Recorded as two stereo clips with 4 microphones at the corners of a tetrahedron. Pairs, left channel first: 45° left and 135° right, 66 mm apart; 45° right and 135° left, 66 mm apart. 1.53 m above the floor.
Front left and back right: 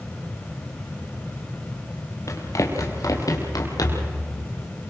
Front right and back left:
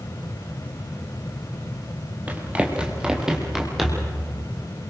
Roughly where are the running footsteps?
Left.